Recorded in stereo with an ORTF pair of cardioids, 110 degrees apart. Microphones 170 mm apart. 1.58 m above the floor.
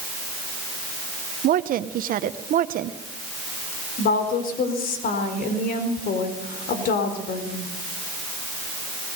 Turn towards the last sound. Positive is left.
turn(degrees=60)